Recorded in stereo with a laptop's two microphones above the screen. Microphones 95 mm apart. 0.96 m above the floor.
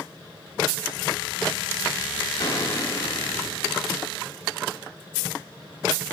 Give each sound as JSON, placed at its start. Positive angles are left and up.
{"t": 2.4, "sound": "a gunshot", "side_deg": 30, "distance_m": 1.5}